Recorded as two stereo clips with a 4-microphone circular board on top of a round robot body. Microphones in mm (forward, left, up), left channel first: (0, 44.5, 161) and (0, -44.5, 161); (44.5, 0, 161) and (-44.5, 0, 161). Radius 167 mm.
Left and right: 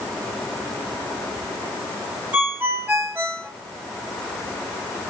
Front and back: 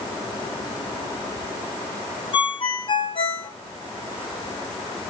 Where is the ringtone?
25° right, 1.3 m.